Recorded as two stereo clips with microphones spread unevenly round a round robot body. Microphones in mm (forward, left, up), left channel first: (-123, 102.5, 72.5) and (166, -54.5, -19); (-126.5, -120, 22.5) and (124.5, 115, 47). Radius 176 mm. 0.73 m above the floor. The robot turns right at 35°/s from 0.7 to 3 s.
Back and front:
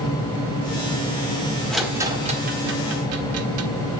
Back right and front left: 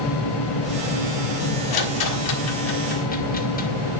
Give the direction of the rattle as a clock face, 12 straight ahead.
4 o'clock.